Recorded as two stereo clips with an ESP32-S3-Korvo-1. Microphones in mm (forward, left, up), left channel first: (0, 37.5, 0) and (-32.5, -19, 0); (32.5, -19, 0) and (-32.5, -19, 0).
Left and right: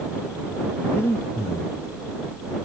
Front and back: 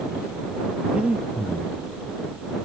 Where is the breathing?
110° left.